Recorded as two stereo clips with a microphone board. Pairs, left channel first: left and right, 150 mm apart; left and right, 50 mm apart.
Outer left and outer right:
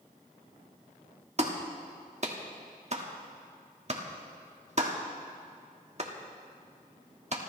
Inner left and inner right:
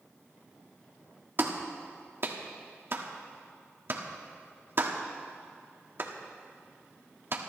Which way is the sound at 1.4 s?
50° right (ahead or behind).